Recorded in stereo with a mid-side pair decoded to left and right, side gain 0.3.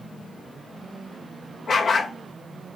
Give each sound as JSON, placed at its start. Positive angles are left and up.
{"t": 1.7, "sound": "a dog barking", "azimuth_deg": 70, "distance_m": 2.0}